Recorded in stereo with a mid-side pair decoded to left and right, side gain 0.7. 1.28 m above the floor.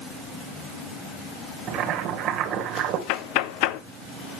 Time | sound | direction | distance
1.7 | boiling | 55° right | 2.5 m
3.1 | knocking | 70° left | 0.8 m